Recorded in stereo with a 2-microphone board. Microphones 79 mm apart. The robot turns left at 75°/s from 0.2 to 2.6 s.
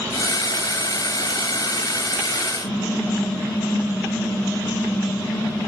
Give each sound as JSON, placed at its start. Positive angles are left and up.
{"t": 2.6, "sound": "typing on a keyboard", "side_deg": 65, "distance_m": 3.0}